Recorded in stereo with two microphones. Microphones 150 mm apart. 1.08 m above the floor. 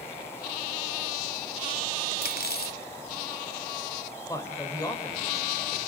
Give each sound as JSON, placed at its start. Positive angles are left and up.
{"t": 2.2, "sound": "cutlery clinking", "side_deg": 75, "distance_m": 0.8}
{"t": 4.3, "sound": "a man speaking", "side_deg": 20, "distance_m": 4.0}